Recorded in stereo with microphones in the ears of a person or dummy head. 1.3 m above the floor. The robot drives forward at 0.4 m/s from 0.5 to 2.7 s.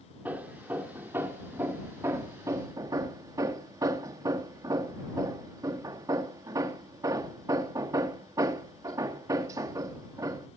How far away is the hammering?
About 1.9 m.